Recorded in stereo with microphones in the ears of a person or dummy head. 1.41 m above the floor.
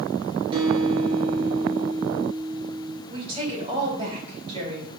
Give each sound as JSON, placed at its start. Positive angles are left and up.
{"t": 0.5, "sound": "a guitar", "side_deg": -25, "distance_m": 3.0}
{"t": 3.1, "sound": "a woman speaking", "side_deg": -30, "distance_m": 3.5}